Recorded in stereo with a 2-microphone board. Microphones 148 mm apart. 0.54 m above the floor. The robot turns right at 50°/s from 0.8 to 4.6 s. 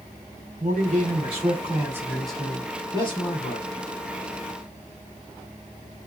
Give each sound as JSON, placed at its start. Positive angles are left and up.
{"t": 0.6, "sound": "a man speaking", "azimuth_deg": -75, "distance_m": 1.3}